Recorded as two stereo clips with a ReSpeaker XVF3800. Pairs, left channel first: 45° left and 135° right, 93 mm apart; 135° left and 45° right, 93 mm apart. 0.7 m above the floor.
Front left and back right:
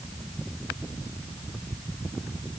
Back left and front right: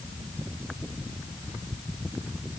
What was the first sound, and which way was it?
Only background noise.